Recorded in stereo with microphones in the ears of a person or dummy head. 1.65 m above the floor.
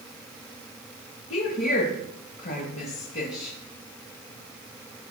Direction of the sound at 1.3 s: 45° left (ahead or behind).